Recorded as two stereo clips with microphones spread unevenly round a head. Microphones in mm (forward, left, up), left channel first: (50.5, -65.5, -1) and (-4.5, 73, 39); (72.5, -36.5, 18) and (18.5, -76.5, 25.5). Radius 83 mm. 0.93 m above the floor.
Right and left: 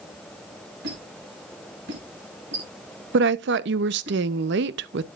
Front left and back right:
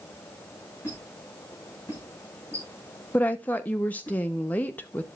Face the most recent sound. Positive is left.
turn(degrees=105)